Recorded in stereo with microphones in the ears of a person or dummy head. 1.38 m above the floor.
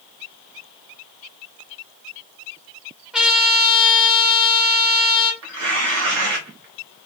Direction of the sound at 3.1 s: 5° right (ahead or behind).